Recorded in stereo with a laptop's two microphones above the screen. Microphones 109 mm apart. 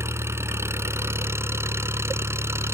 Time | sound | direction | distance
0.0 | an engine running | 25° right (ahead or behind) | ?